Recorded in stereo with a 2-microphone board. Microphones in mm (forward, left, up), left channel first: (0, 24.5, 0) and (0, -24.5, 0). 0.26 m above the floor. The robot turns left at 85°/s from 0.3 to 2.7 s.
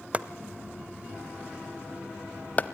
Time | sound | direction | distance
0.1 | chopping | 25° right (ahead or behind) | 0.5 m